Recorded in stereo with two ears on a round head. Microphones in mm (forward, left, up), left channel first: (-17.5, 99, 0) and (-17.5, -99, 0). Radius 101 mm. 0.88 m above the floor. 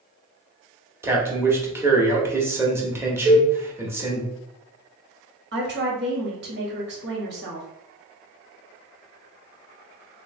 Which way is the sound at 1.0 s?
10° right (ahead or behind).